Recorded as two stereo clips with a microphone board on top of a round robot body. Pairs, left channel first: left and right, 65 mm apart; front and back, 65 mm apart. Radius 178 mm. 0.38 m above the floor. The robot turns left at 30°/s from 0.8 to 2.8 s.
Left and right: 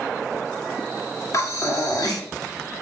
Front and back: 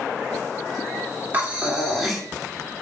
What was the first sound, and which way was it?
Breathing, 120° left.